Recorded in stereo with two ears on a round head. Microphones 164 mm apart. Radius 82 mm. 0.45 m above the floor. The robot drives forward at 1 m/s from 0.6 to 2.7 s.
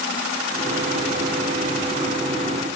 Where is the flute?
No flute in this recording.